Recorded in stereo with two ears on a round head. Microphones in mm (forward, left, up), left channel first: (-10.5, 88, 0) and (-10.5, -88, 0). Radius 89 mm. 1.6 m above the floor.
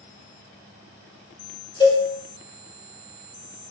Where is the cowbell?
25° left (ahead or behind), 0.9 m.